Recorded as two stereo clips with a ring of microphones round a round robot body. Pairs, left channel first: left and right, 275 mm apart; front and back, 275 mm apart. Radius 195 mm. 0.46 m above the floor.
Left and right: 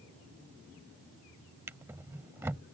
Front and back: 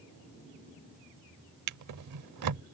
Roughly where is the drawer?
Behind.